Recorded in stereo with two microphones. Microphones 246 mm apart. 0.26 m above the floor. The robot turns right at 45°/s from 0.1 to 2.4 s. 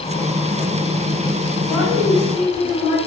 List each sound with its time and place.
1.6 s a woman speaking: 5° left, 1.6 m; by 3.0 s 40° left, 1.6 m